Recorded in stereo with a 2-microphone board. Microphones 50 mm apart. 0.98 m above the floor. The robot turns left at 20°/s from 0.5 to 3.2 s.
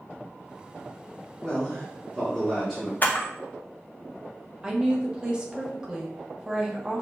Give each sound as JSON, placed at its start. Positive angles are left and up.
{"t": 1.4, "sound": "a man speaking", "side_deg": 20, "distance_m": 1.0}
{"t": 3.0, "sound": "a camera shutter", "side_deg": 35, "distance_m": 0.7}
{"t": 4.6, "sound": "a woman speaking", "side_deg": -15, "distance_m": 0.8}